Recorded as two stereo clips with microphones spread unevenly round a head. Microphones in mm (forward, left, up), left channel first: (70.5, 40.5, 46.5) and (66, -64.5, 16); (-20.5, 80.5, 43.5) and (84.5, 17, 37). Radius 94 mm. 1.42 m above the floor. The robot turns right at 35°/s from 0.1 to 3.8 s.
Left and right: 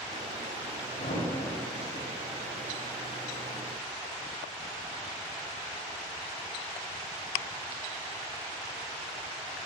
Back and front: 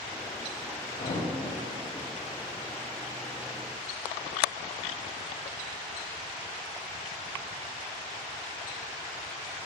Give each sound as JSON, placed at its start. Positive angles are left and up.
{"t": 1.0, "sound": "a thud", "azimuth_deg": 115, "distance_m": 2.0}